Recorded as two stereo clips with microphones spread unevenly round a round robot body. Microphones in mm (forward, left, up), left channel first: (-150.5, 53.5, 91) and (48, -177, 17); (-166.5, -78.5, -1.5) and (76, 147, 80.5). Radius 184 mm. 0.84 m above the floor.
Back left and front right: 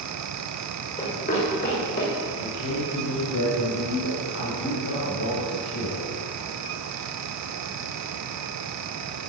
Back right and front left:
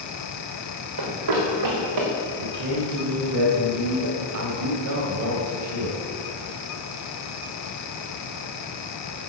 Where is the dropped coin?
No dropped coin in this recording.